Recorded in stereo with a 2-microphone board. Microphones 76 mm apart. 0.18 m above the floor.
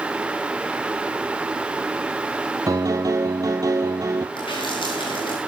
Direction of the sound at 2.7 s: 45° right (ahead or behind).